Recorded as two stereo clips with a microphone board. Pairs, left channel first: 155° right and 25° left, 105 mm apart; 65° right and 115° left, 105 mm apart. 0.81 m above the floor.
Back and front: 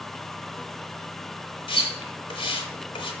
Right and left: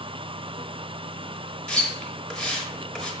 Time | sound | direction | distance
1.7 | a splash | 150° right | 0.6 m